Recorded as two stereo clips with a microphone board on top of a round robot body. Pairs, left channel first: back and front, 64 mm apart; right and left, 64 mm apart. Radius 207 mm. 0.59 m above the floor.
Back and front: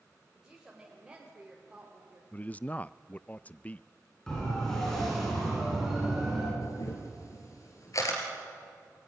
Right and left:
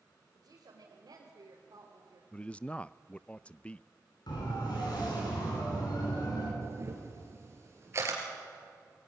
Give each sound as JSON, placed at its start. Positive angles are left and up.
{"t": 0.3, "sound": "a woman speaking", "azimuth_deg": 85, "distance_m": 4.0}
{"t": 2.3, "sound": "a man speaking", "azimuth_deg": -140, "distance_m": 0.6}
{"t": 4.3, "sound": "a siren", "azimuth_deg": -100, "distance_m": 8.5}
{"t": 6.6, "sound": "a camera shutter", "azimuth_deg": 140, "distance_m": 3.5}